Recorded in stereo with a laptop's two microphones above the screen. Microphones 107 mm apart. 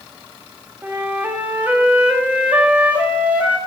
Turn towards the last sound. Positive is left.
turn(degrees=-15)  # may be behind; listen again after turning